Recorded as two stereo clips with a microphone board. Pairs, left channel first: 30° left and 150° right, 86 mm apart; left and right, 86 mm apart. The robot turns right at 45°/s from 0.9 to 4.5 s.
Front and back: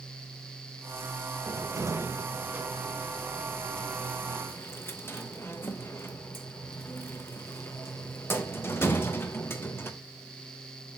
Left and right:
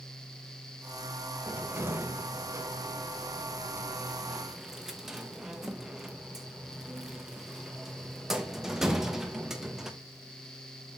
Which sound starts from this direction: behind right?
A cupboard door, at 1.5 s.